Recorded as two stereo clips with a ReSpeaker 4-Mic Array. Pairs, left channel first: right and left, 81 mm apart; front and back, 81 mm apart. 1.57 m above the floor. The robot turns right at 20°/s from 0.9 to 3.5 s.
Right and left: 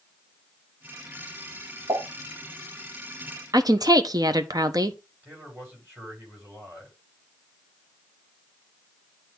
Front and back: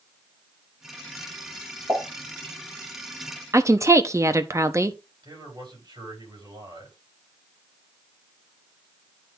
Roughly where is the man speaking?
Behind left.